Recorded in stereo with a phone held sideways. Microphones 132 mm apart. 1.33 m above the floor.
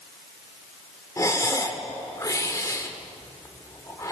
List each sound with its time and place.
1.2 s breathing: 25° left (ahead or behind), 1.4 m